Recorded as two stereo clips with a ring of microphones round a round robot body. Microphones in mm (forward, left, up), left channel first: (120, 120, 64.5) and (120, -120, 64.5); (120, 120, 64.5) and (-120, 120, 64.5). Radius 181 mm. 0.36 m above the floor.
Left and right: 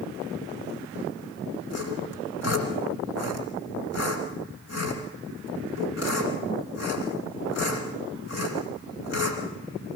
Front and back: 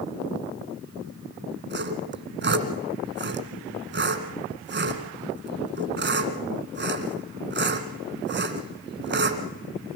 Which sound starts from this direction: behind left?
Sawing, at 1.7 s.